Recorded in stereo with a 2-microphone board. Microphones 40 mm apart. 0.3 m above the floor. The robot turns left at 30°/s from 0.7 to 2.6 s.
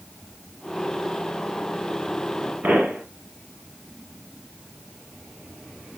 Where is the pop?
55° right (ahead or behind), 1.4 m.